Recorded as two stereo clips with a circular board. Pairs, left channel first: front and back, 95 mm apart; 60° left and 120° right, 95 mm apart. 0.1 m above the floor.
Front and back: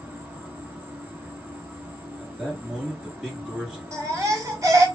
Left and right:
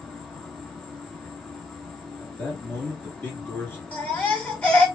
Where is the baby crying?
135° left, 1.2 m.